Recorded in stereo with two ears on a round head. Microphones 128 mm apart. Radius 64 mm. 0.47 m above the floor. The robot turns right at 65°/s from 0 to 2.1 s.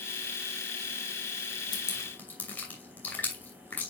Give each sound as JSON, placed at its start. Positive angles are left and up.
{"t": 1.7, "sound": "dripping", "side_deg": 35, "distance_m": 2.5}